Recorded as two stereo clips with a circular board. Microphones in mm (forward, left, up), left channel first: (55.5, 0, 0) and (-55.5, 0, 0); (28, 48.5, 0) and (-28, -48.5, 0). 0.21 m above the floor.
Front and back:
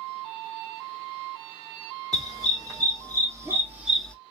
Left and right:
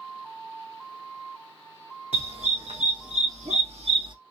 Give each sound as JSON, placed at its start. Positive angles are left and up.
{"t": 2.1, "sound": "a dog barking", "azimuth_deg": -130, "distance_m": 3.0}